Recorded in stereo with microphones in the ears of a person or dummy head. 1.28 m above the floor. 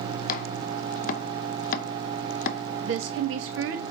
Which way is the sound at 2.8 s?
60° right (ahead or behind).